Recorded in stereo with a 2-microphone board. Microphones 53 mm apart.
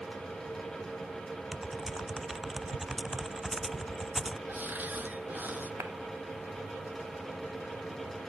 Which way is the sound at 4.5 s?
35° right (ahead or behind).